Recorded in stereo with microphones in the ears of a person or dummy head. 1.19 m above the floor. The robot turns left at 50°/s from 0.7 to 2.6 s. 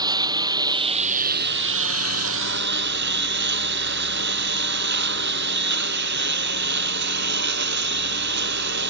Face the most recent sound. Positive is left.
turn(degrees=-120)